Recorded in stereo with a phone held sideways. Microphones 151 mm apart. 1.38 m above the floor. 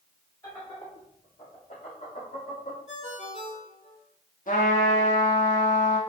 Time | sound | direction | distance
0.4 | laughter | 30° left (ahead or behind) | 3.5 m
2.9 | a ringtone | 50° left (ahead or behind) | 2.5 m
4.5 | a trumpet | 60° left (ahead or behind) | 2 m